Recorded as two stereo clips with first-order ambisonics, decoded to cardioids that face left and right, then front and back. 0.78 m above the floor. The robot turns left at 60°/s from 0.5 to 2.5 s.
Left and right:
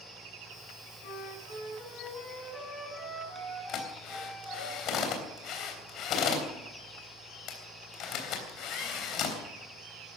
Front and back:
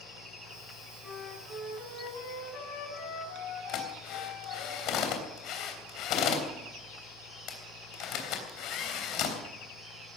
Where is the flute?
90° left, 6.5 m; by 4.7 s 5° left, 6.5 m.